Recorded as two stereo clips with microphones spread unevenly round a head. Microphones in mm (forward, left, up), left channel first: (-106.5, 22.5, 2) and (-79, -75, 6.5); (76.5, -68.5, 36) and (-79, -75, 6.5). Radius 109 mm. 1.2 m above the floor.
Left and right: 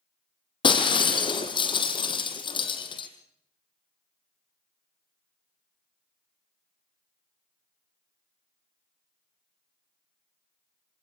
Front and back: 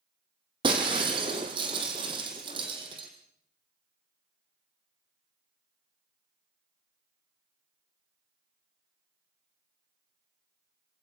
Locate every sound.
0.6 s breaking glass: 115° left, 1.9 m